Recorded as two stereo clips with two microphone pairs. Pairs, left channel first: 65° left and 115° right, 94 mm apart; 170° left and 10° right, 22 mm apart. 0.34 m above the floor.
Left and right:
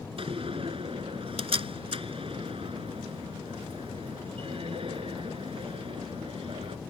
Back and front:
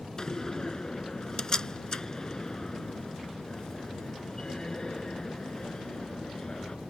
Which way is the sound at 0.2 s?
125° right.